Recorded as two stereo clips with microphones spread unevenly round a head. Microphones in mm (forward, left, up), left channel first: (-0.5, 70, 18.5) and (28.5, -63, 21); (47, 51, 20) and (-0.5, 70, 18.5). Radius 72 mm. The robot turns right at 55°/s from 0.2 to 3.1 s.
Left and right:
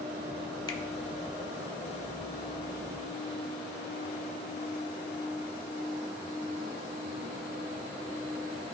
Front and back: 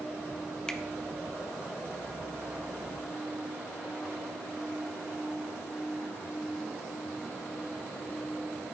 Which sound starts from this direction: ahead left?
A finger snap, at 0.7 s.